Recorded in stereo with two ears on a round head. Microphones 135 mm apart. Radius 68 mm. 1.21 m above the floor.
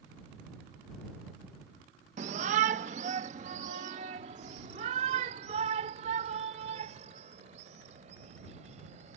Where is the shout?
50° right (ahead or behind); by 9.2 s 45° right (ahead or behind).